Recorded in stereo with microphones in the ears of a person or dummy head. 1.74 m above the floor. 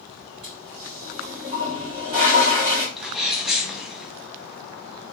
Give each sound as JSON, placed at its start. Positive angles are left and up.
{"t": 0.4, "sound": "a toilet flushing", "side_deg": -30, "distance_m": 1.4}
{"t": 3.0, "sound": "a sneeze", "side_deg": -5, "distance_m": 1.0}